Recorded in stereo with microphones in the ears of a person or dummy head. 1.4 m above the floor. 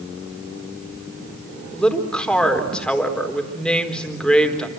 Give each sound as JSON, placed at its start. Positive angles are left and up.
{"t": 1.7, "sound": "a woman speaking", "side_deg": 5, "distance_m": 4.0}